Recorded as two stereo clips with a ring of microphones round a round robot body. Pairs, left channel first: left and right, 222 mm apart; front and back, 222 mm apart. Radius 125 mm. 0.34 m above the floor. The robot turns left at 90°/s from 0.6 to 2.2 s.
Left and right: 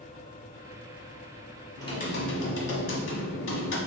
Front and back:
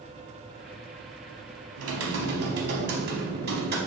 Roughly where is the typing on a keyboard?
Behind.